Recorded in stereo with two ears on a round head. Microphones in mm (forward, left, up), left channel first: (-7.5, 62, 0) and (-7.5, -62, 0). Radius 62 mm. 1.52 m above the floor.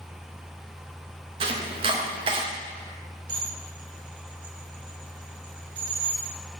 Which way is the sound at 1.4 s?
40° right (ahead or behind).